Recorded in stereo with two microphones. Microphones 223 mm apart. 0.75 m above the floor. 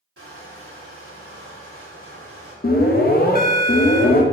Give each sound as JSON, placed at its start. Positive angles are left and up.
{"t": 0.2, "sound": "crushing", "side_deg": -80, "distance_m": 1.6}
{"t": 2.6, "sound": "an alarm", "side_deg": 40, "distance_m": 0.5}